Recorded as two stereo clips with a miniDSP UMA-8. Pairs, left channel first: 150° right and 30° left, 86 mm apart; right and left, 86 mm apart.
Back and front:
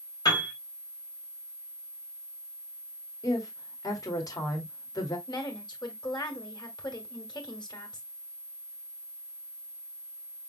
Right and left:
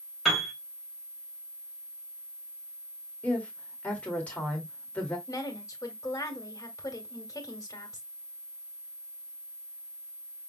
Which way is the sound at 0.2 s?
Straight behind.